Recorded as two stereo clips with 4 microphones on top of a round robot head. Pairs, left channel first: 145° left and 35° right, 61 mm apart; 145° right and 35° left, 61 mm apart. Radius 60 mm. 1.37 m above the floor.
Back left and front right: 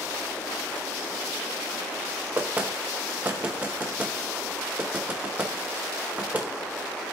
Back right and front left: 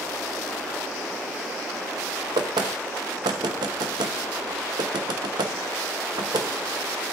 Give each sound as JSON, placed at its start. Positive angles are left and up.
{"t": 2.4, "sound": "knocking", "azimuth_deg": 30, "distance_m": 0.8}